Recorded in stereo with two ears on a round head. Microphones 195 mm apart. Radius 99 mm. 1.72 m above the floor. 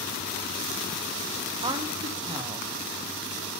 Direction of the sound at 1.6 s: 20° right (ahead or behind).